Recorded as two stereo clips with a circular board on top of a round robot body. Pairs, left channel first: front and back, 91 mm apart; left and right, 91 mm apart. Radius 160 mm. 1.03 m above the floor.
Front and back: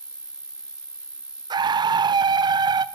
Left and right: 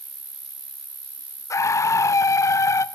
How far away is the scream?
About 0.9 m.